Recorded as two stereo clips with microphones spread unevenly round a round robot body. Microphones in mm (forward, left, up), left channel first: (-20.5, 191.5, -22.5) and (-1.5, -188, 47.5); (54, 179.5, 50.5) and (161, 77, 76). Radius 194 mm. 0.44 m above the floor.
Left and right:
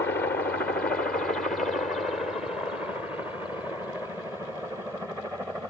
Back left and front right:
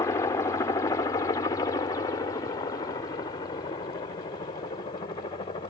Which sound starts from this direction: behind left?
A helicopter, at 0.0 s.